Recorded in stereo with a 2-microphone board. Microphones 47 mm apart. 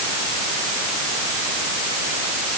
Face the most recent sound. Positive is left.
No sound to turn to.